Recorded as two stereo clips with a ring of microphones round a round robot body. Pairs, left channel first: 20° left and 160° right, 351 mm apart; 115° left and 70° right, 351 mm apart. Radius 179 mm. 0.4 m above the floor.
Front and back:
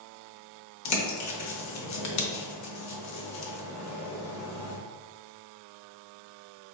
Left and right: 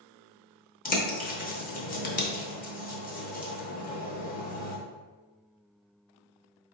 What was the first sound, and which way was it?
A bird, 50° left.